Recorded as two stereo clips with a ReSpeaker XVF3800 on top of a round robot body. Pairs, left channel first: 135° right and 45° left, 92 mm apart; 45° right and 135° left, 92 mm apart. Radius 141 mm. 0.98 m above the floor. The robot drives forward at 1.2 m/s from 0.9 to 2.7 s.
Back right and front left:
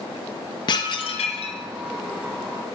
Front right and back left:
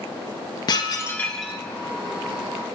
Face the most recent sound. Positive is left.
turn(degrees=-165)